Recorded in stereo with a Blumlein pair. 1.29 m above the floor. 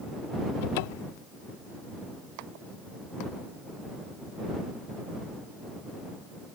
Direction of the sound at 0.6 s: 50° left.